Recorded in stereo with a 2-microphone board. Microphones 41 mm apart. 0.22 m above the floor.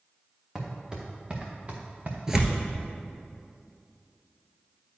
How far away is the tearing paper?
About 1.1 m.